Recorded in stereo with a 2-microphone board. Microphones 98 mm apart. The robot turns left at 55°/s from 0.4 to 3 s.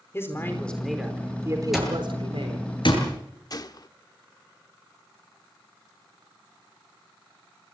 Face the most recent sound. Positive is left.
turn(degrees=45)  # may be behind; listen again after turning